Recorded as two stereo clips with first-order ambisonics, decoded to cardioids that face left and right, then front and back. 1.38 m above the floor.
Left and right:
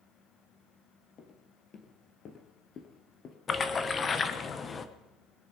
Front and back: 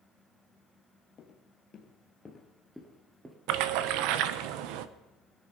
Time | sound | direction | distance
1.2 | footsteps | 45° left | 1.9 m
3.5 | a splash | 160° left | 0.8 m